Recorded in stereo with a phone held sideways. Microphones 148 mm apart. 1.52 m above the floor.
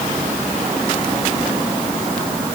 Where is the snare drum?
I don't hear a snare drum.